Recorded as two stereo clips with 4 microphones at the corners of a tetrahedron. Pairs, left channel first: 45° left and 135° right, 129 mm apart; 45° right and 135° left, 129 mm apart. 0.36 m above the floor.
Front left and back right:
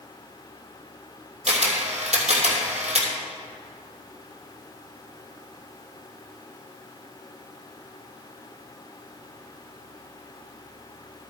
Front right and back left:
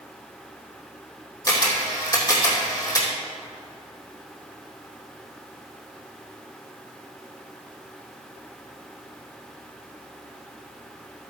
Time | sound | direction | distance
1.5 | a camera shutter | 110° right | 2.5 m